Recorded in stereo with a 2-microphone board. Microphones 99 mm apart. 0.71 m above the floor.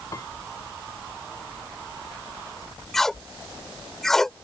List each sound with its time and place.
0.1 s a piano: 35° left (ahead or behind)
2.9 s tape being pulled: 5° left (ahead or behind)